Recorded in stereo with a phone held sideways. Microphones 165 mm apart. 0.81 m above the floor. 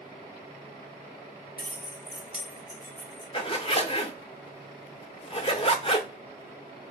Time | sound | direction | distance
1.6 | keys jangling | 70° left (ahead or behind) | 1.1 m
3.3 | a zipper | 35° left (ahead or behind) | 0.6 m